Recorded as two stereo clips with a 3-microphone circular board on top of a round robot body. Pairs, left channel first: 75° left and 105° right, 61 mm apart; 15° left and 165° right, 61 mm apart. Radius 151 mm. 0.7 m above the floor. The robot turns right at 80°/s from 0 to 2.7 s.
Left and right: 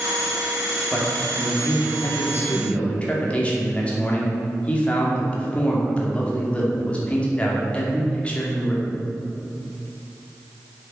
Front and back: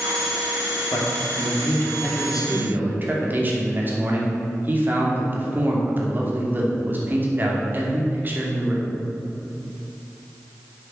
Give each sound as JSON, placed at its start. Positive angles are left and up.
{"t": 0.9, "sound": "a man speaking", "azimuth_deg": 0, "distance_m": 2.5}